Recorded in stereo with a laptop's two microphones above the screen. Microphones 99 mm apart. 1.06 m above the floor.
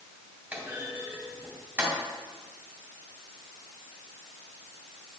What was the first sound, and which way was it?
A clunk, 20° right (ahead or behind).